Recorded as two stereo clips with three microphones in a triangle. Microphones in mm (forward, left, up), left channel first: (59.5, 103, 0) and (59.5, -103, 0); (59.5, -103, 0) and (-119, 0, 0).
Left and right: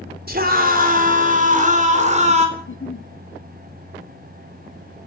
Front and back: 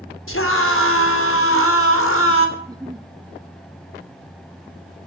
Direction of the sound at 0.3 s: 45° right.